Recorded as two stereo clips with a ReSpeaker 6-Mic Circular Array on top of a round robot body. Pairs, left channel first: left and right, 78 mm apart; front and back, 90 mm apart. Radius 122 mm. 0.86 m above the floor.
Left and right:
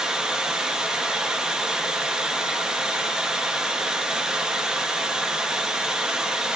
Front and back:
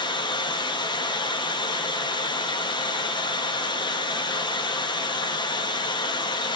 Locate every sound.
0.0 s running water: 10° right, 0.8 m